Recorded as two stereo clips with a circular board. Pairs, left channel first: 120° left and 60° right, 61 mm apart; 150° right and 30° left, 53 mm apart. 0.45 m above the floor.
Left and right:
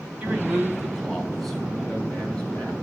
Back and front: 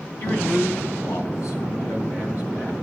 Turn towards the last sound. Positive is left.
turn(degrees=-170)